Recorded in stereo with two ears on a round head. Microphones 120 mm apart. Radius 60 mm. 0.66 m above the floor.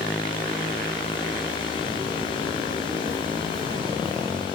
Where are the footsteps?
45° right (ahead or behind), 7.5 m; by 4.5 s 30° right (ahead or behind), 7.5 m.